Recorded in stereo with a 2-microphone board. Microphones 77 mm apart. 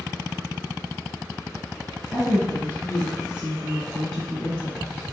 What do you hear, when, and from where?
2.1 s a woman speaking: 35° right (ahead or behind), 1.8 m; by 5.1 s 25° left (ahead or behind), 1.5 m